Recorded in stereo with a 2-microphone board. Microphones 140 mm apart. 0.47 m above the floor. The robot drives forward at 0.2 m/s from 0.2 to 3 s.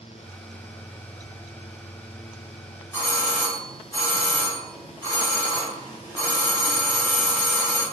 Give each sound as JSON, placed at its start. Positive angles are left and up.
{"t": 2.9, "sound": "a doorbell", "side_deg": 25, "distance_m": 2.0}